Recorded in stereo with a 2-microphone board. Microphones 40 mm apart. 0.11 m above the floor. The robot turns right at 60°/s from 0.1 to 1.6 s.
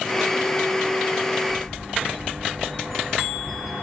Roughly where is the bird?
Centre.